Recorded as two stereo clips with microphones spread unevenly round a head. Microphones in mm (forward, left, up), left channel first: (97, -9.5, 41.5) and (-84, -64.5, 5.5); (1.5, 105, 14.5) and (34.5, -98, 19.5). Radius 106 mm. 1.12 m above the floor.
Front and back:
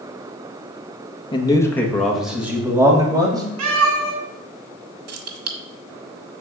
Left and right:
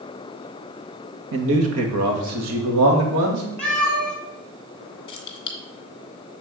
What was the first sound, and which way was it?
A man speaking, 55° right.